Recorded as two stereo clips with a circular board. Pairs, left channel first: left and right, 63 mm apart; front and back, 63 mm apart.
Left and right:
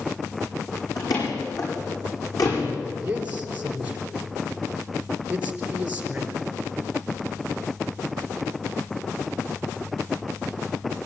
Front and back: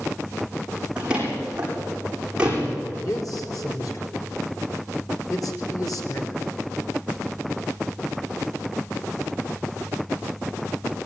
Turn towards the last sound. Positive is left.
turn(degrees=-25)